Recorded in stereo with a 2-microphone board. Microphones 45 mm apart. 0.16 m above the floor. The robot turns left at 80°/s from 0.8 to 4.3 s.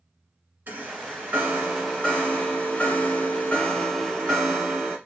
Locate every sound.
0.7 s a chime: 95° right, 1.7 m; by 5.0 s 15° right, 1.7 m